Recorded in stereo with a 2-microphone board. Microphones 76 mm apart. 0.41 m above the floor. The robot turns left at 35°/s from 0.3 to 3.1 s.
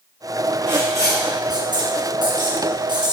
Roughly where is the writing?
Right.